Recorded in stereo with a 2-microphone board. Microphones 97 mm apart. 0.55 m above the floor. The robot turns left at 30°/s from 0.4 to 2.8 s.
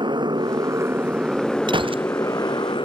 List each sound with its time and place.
0.0 s a motorcycle: 50° right (ahead or behind); by 2.9 s 55° left (ahead or behind)
1.7 s a gunshot: 55° right (ahead or behind); by 2.1 s 65° right (ahead or behind)